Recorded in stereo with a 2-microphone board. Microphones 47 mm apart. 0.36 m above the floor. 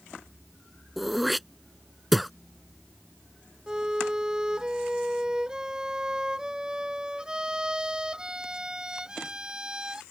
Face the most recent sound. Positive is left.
turn(degrees=-15)  # may be behind; listen again after turning